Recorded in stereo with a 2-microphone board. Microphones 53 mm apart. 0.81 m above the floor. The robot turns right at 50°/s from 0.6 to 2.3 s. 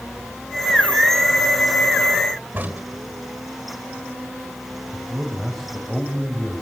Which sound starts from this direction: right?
A crack, at 2.5 s.